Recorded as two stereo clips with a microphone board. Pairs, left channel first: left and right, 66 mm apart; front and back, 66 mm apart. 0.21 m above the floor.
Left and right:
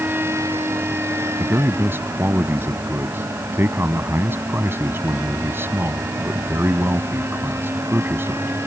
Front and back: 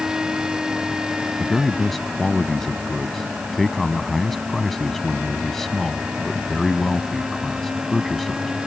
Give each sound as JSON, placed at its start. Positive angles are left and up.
{"t": 1.4, "sound": "a man speaking", "azimuth_deg": -85}